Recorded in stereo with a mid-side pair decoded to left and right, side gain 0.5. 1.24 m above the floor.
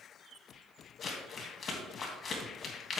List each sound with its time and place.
1.0 s crumpling: 45° left, 3 m